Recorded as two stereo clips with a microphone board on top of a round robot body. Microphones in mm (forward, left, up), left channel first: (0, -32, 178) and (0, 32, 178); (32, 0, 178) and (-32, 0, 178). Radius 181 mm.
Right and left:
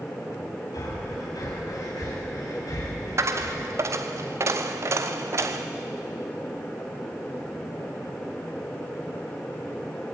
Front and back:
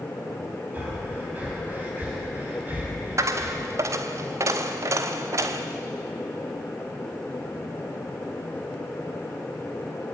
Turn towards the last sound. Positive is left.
turn(degrees=135)